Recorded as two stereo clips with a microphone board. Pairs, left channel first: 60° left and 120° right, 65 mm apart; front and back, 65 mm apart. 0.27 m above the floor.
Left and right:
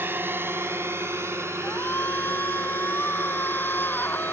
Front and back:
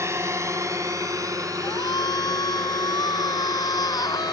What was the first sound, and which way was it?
A drone, 160° right.